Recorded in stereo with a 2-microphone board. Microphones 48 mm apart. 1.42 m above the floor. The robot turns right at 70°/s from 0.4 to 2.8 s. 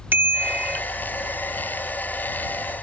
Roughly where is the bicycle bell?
Right.